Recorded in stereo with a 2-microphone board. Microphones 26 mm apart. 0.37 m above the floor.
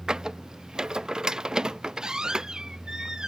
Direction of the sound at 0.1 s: 30° right (ahead or behind).